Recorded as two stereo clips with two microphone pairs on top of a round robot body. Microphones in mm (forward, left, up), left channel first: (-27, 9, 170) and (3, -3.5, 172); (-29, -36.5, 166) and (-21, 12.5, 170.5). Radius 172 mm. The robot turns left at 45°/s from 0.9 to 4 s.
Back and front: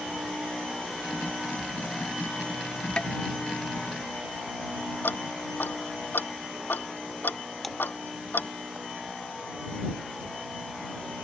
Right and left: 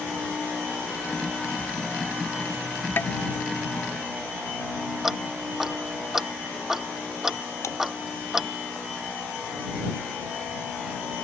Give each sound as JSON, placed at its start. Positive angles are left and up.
{"t": 3.0, "sound": "tapping", "azimuth_deg": -145}
{"t": 5.0, "sound": "ticking", "azimuth_deg": 165}
{"t": 7.6, "sound": "a splash", "azimuth_deg": -115}